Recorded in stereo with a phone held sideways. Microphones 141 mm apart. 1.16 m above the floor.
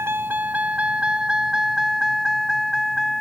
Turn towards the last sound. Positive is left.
turn(degrees=0)  # may be behind; listen again after turning